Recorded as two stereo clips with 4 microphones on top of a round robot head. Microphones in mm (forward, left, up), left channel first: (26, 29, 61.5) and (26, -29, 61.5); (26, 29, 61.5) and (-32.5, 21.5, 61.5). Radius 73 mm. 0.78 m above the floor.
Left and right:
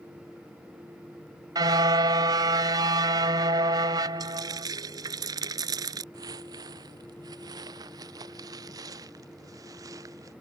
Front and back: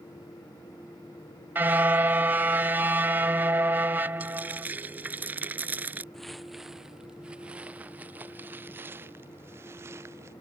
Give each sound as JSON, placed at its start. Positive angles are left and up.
{"t": 1.6, "sound": "a car horn", "azimuth_deg": -110}
{"t": 4.2, "sound": "frying", "azimuth_deg": -105}
{"t": 6.1, "sound": "footsteps", "azimuth_deg": -80}